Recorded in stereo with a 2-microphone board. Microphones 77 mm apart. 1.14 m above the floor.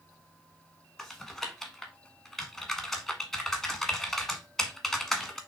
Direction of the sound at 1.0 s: Centre (ahead or behind).